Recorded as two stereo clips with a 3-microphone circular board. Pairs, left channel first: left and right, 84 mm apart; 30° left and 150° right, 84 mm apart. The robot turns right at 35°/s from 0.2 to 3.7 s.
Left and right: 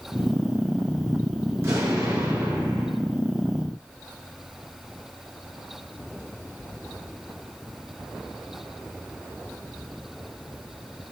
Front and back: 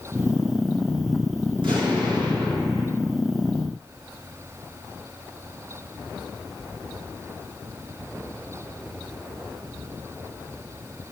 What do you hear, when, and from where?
1.6 s an explosion: 155° right, 2.5 m; by 2.9 s 105° right, 2.5 m